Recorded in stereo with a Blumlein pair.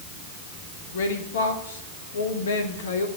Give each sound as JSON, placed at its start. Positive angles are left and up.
{"t": 0.9, "sound": "a woman speaking", "azimuth_deg": 60, "distance_m": 2.0}